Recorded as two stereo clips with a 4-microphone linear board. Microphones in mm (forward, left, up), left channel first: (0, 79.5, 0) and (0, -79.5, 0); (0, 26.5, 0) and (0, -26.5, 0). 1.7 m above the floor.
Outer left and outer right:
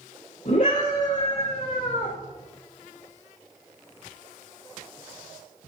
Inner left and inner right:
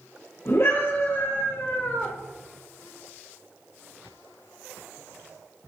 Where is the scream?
60° left (ahead or behind), 4.5 m; by 2.1 s 55° left (ahead or behind), 3.5 m.